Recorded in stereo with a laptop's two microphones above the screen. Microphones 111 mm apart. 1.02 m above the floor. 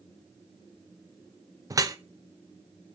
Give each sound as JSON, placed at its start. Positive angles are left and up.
{"t": 1.7, "sound": "dripping", "side_deg": -30, "distance_m": 0.7}